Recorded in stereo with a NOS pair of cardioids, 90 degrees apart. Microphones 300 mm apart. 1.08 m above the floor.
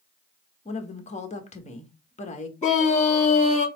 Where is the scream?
25° left, 2 m.